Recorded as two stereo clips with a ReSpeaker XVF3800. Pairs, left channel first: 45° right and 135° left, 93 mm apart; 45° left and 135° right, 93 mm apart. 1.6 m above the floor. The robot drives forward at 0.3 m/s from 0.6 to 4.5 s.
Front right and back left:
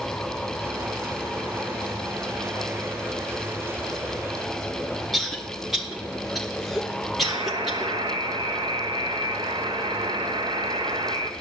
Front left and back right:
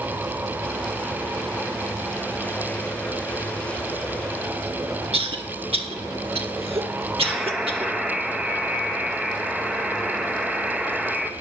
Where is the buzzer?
145° left, 0.8 m.